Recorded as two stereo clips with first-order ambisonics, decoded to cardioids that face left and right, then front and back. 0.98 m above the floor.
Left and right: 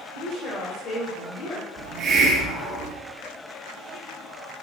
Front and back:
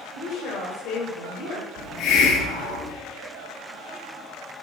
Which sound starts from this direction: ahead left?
A woman speaking, at 0.1 s.